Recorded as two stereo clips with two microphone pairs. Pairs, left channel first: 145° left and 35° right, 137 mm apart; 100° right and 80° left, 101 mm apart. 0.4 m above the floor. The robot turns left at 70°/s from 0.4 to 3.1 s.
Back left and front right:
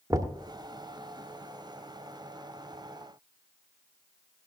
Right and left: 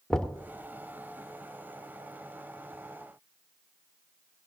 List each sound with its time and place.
0.1 s knocking: 20° right, 0.9 m